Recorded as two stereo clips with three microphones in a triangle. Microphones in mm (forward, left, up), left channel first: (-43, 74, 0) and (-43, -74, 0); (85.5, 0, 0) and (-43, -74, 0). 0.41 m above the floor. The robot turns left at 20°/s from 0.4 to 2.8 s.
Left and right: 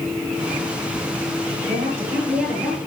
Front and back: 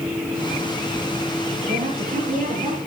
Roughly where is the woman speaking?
Behind right.